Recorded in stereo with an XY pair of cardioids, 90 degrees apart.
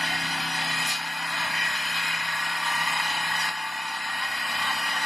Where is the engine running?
10° left, 1.1 m.